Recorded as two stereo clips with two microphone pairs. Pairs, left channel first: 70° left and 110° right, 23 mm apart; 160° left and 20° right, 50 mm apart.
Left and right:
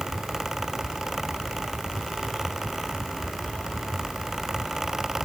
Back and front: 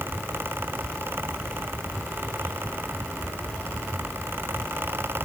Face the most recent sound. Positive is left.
No sound to turn to.